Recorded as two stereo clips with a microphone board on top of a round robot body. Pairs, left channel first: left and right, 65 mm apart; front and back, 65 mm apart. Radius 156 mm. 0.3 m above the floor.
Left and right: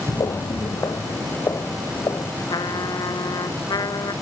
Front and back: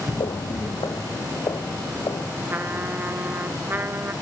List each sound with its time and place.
0.1 s footsteps: 50° left; by 2.3 s 45° left
2.5 s a trumpet: 115° left